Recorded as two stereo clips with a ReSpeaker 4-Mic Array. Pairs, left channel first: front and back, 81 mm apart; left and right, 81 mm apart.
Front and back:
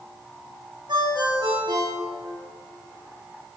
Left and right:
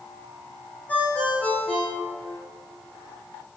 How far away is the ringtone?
About 6 m.